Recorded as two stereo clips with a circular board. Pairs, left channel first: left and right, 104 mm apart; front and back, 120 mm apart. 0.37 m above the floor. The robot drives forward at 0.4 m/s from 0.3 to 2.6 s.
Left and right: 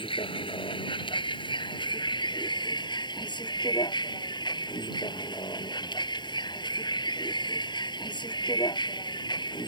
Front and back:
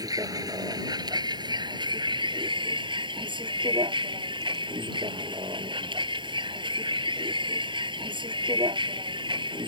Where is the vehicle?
120° left; by 9.7 s 135° left.